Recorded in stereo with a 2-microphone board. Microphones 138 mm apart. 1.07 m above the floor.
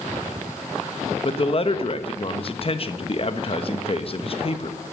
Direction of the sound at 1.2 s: 45° left (ahead or behind).